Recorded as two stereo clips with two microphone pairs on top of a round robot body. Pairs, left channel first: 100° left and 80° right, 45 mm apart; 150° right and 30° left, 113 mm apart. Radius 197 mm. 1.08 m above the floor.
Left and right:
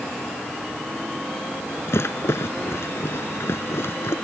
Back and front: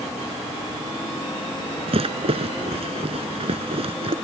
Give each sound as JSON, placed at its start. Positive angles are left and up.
{"t": 1.9, "sound": "a rattle", "azimuth_deg": 65}